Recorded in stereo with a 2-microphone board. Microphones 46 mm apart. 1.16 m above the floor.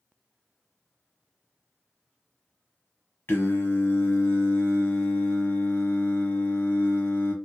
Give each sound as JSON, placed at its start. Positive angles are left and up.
{"t": 3.3, "sound": "singing", "side_deg": 50, "distance_m": 0.7}